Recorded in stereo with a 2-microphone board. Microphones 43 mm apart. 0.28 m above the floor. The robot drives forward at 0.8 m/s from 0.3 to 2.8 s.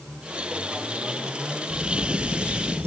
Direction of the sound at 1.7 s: 80° right.